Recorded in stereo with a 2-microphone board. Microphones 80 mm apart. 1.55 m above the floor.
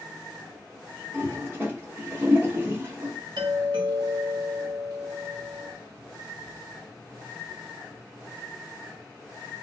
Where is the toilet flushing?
25° right (ahead or behind), 1.1 m.